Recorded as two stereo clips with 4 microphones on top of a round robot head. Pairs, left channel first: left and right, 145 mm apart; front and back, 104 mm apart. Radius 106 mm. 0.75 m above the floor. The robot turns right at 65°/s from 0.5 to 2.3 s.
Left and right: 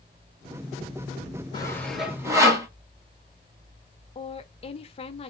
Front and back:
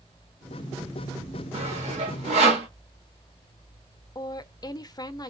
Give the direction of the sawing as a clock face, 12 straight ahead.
7 o'clock.